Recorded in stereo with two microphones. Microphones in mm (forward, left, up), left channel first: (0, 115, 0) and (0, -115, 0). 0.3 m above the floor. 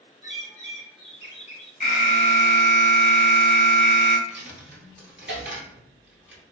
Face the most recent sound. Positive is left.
turn(degrees=-55)  # may be behind; listen again after turning